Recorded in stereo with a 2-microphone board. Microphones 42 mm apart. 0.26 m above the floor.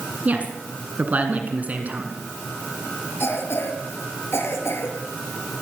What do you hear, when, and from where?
0.2 s a woman speaking: 35° right (ahead or behind), 2.5 m
3.2 s a cough: 70° left (ahead or behind), 6 m